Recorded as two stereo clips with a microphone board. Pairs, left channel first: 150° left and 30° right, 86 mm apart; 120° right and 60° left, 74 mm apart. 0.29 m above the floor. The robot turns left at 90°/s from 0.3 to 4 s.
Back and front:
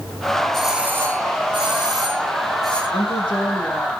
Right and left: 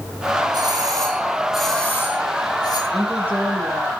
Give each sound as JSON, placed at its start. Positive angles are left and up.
{"t": 0.5, "sound": "a doorbell", "azimuth_deg": 65, "distance_m": 4.0}
{"t": 2.9, "sound": "a woman speaking", "azimuth_deg": 155, "distance_m": 4.5}